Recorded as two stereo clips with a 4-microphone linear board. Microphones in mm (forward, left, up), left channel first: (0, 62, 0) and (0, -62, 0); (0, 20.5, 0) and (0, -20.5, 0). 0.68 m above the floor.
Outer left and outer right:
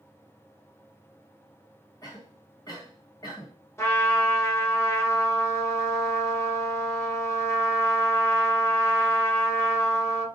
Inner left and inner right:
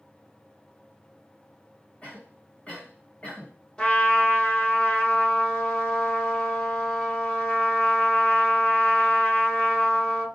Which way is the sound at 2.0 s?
30° left (ahead or behind).